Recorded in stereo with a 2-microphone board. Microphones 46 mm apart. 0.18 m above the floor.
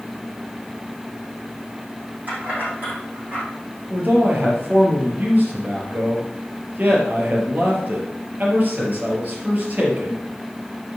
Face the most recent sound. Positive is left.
turn(degrees=-40)  # may be behind; listen again after turning